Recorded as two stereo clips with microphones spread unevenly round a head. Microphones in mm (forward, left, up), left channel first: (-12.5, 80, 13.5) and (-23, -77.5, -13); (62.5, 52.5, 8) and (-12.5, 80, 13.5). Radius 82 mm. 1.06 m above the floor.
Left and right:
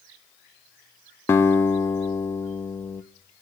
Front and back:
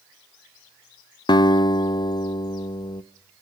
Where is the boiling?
No boiling in this recording.